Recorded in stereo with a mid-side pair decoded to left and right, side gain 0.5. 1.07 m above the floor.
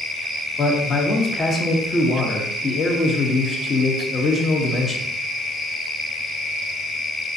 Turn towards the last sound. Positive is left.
turn(degrees=40)